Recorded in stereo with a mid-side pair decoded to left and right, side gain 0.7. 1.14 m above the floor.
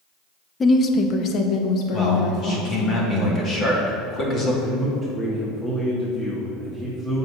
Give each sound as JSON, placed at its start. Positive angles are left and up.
{"t": 0.6, "sound": "a woman speaking", "azimuth_deg": 20, "distance_m": 0.9}
{"t": 1.9, "sound": "a man speaking", "azimuth_deg": 40, "distance_m": 3.0}
{"t": 4.6, "sound": "a man speaking", "azimuth_deg": 10, "distance_m": 1.6}